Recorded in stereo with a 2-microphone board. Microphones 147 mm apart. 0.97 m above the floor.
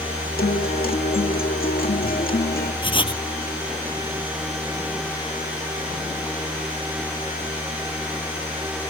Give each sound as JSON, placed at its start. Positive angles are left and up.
{"t": 0.4, "sound": "a guitar", "side_deg": 70}
{"t": 2.8, "sound": "writing", "side_deg": 35}